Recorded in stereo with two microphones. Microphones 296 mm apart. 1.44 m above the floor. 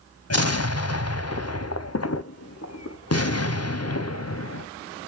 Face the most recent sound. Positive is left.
turn(degrees=55)  # may be behind; listen again after turning